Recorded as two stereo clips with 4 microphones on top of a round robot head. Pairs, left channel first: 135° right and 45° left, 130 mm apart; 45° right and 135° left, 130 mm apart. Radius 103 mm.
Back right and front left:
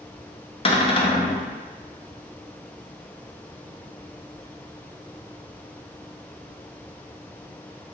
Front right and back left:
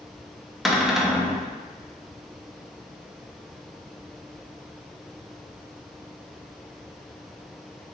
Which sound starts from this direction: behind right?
A cupboard door, at 0.7 s.